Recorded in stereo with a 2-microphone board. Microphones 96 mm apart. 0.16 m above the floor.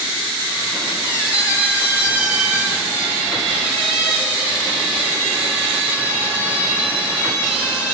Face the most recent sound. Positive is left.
turn(degrees=-15)  # may be behind; listen again after turning